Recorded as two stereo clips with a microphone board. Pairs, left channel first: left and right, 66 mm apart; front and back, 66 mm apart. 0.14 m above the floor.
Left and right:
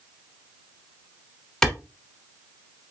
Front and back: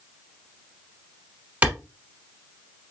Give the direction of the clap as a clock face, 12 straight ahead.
7 o'clock.